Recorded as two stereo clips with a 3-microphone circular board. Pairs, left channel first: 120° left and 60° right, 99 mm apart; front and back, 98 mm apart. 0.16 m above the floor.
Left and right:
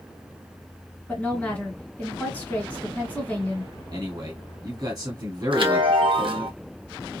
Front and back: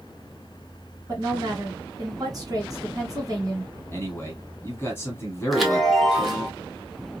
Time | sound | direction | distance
1.1 | a woman speaking | 175° right | 1.7 m
3.9 | a man speaking | 55° right | 1.6 m
5.5 | a chime | 90° right | 0.9 m